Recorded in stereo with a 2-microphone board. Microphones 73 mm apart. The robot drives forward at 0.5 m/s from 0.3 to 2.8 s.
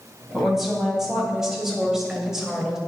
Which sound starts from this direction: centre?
A woman speaking, at 0.3 s.